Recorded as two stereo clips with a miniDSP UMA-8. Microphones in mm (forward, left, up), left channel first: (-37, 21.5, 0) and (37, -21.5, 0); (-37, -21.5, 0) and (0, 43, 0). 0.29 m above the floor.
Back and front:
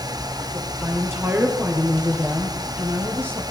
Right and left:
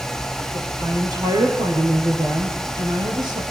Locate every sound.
0.5 s a woman speaking: 30° left, 6 m; by 3.4 s 35° left, 8.5 m